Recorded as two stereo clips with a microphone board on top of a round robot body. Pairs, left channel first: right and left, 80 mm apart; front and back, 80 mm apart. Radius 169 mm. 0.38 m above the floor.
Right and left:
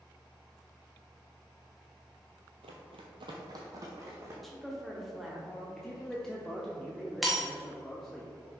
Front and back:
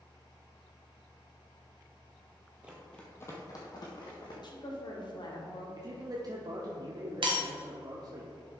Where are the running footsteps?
105° left, 0.9 m; by 4.3 s 30° left, 2.5 m.